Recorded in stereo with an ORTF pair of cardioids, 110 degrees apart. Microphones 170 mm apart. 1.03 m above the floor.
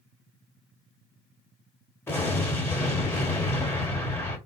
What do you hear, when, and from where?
2.1 s an explosion: 15° left, 1.7 m